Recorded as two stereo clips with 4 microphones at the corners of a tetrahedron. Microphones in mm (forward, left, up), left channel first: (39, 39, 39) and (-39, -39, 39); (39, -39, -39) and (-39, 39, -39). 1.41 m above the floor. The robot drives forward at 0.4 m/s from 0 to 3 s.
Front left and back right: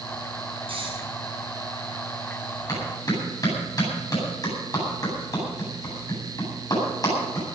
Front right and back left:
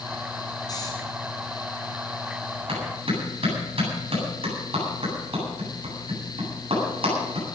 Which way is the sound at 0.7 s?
100° right.